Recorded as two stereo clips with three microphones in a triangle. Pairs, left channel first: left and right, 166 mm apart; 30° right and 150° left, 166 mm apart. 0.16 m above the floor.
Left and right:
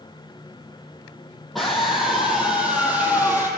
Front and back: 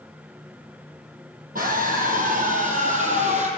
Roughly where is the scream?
Behind.